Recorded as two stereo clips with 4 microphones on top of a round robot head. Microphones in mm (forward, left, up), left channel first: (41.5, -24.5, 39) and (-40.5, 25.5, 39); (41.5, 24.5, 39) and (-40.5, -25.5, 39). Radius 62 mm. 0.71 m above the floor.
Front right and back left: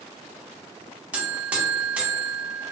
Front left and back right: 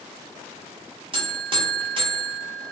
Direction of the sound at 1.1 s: 135° right.